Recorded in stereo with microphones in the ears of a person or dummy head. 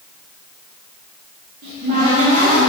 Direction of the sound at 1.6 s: 40° right (ahead or behind).